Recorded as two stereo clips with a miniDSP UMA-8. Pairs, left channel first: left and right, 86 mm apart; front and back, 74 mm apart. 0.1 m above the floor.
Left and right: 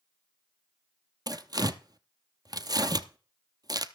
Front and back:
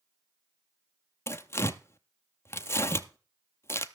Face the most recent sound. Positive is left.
turn(degrees=-55)